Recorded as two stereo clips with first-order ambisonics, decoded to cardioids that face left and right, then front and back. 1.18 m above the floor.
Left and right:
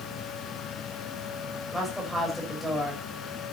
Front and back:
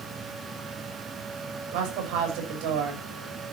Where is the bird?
I don't hear a bird.